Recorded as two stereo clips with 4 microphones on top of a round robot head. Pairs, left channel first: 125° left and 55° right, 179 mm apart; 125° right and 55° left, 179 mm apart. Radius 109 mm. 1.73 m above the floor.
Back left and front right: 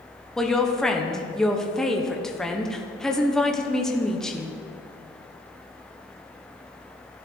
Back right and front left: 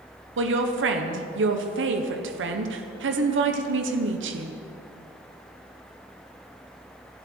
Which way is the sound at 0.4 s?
40° left.